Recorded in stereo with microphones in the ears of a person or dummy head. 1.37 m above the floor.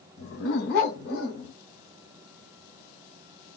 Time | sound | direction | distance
0.2 | a dog barking | 70° left (ahead or behind) | 3 m